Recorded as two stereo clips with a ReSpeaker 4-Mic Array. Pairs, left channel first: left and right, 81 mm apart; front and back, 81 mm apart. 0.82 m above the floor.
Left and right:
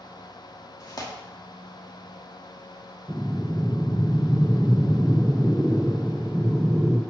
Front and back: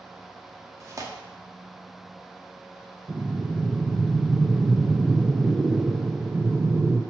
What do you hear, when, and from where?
0.8 s tearing paper: 130° left, 1.2 m
3.1 s breathing: 160° right, 0.6 m